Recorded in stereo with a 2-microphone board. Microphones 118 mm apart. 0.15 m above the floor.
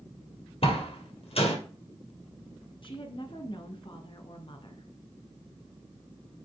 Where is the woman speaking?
45° left (ahead or behind), 1.6 m.